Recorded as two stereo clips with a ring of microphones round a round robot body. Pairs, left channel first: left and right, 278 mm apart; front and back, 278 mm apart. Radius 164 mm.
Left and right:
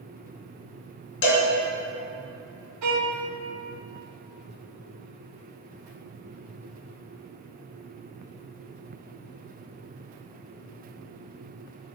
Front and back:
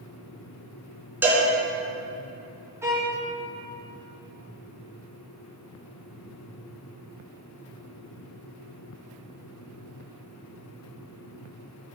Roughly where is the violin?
Right.